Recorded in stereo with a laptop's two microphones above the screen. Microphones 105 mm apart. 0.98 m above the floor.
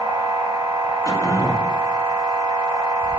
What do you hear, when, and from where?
0.0 s a machine running: 40° right (ahead or behind), 1.1 m
1.1 s throat clearing: 35° left (ahead or behind), 0.9 m